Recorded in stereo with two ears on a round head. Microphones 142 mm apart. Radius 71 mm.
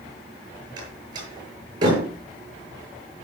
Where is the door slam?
30° right (ahead or behind), 7 m.